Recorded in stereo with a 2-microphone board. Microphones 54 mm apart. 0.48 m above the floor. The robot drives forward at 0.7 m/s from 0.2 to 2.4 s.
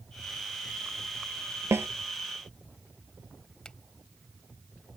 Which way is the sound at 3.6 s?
15° left (ahead or behind).